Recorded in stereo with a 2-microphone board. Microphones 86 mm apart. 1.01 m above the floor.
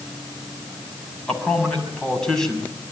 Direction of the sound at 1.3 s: 5° left (ahead or behind).